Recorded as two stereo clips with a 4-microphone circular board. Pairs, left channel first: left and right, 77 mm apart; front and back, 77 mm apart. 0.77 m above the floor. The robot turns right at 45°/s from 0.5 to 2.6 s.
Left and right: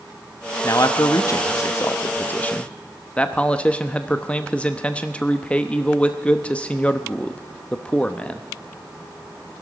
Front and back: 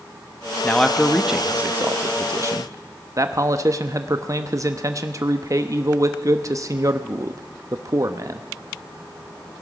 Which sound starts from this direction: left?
A man speaking, at 0.6 s.